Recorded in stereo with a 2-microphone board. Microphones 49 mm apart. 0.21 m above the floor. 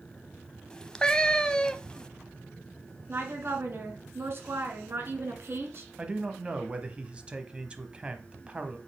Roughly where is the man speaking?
Right.